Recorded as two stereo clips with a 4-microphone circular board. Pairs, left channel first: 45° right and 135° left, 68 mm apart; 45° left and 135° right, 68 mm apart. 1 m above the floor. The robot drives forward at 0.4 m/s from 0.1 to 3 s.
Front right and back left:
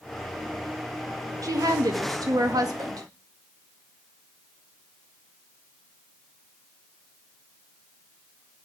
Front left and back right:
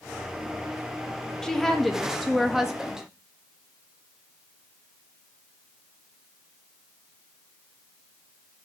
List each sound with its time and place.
1.4 s a woman speaking: 125° left, 1.4 m; by 3.1 s 145° left, 1.8 m